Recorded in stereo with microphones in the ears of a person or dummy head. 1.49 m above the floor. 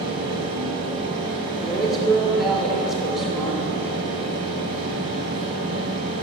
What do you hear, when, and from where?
0.0 s a fan: 30° right (ahead or behind), 2 m
1.6 s a woman speaking: centre (ahead or behind), 1.3 m